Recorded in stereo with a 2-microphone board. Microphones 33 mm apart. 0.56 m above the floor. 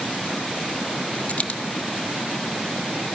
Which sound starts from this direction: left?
A dropped coin, at 1.3 s.